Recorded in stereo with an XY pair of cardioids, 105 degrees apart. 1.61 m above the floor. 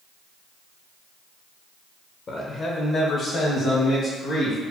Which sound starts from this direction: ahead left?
A man speaking, at 2.3 s.